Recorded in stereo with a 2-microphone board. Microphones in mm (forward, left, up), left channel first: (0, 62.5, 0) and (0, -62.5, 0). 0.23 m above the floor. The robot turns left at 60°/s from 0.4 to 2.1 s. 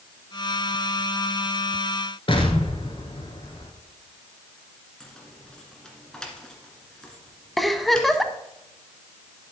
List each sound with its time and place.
2.3 s an explosion: 45° left (ahead or behind), 1.4 m
5.0 s keys jangling: 5° left (ahead or behind), 1.9 m
7.6 s a giggle: centre (ahead or behind), 0.7 m